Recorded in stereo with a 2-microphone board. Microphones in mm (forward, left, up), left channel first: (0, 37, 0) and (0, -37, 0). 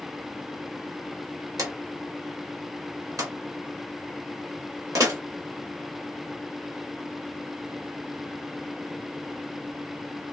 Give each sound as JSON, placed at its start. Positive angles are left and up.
{"t": 1.6, "sound": "a drawer", "side_deg": -50, "distance_m": 1.1}